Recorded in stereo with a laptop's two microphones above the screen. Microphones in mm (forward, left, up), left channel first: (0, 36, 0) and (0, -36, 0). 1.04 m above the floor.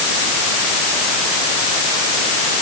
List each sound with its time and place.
Only background noise.